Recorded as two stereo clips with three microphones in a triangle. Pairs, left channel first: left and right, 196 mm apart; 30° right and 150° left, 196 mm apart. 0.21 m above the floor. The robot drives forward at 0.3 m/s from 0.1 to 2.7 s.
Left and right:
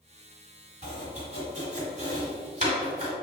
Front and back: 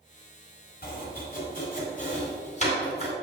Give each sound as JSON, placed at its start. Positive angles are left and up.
{"t": 0.8, "sound": "chopping", "azimuth_deg": -45, "distance_m": 1.8}